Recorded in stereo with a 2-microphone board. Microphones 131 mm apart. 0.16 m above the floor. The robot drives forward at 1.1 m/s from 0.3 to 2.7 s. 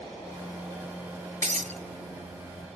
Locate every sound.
1.4 s breaking glass: 70° right (ahead or behind), 1.1 m; by 1.8 s 60° right (ahead or behind), 1.2 m